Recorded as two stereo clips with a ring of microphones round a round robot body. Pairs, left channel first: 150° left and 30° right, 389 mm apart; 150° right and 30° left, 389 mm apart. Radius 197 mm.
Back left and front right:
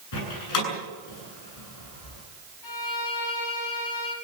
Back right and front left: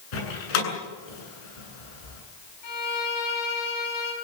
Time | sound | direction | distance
0.1 | a door slam | 165° right | 8.5 m
2.6 | a violin | 175° right | 6 m